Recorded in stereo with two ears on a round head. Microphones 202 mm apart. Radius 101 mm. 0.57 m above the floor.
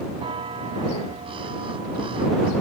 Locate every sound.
0.1 s a bell: 25° right (ahead or behind)